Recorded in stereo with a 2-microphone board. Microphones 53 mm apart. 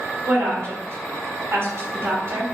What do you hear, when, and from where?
0.2 s a woman speaking: 55° right (ahead or behind), 1.5 m